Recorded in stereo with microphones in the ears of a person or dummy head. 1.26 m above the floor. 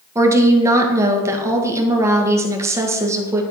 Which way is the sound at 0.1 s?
15° right (ahead or behind).